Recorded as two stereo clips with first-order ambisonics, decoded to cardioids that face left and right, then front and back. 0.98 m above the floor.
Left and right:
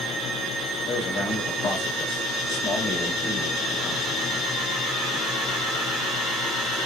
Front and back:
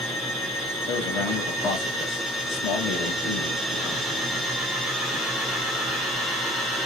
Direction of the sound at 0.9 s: 40° left.